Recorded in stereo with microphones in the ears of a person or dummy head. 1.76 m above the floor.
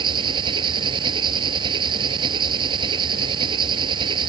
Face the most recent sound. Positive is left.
turn(degrees=-30)  # may be behind; listen again after turning